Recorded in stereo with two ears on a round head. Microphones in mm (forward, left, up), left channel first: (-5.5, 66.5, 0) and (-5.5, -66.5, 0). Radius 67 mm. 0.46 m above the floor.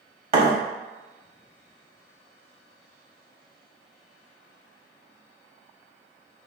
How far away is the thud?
About 1.1 m.